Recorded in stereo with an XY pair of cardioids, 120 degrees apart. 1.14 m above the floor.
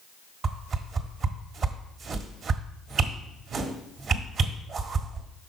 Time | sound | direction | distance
0.4 | a whoosh | 45° right | 1.3 m